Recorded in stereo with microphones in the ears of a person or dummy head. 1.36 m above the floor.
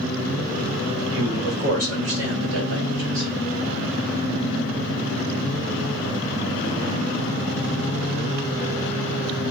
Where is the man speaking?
75° right (ahead or behind), 1.7 m; by 3.3 s 70° right (ahead or behind), 2.5 m.